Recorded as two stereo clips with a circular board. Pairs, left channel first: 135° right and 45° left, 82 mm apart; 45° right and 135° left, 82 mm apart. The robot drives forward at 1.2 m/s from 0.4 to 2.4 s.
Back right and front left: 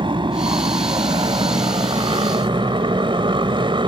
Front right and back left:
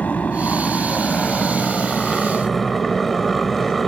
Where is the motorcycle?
30° left; by 3.9 s 45° left.